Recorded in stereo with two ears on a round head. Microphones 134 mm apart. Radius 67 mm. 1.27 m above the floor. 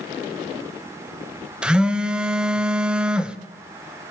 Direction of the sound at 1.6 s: 5° right (ahead or behind).